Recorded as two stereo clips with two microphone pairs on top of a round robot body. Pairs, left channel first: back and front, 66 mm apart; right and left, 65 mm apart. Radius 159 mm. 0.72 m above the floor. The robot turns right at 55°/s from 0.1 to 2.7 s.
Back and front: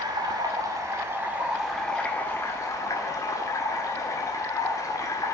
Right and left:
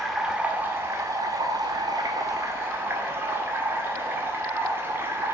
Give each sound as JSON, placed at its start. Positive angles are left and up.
{"t": 0.0, "sound": "running water", "azimuth_deg": 0, "distance_m": 1.8}